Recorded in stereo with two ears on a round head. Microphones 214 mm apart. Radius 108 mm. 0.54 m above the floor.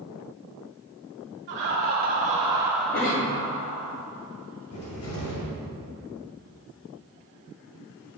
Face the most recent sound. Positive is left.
turn(degrees=60)  # may be behind; listen again after turning